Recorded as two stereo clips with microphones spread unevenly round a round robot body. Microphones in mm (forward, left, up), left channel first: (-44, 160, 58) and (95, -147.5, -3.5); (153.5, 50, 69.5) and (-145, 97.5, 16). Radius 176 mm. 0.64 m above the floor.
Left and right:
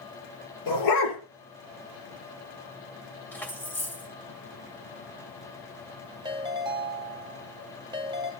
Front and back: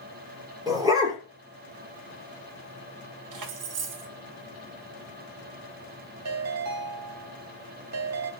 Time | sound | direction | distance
0.7 | a dog barking | 90° left | 6.5 m
3.3 | keys jangling | 160° right | 1.8 m
6.2 | a ringtone | 145° right | 1.8 m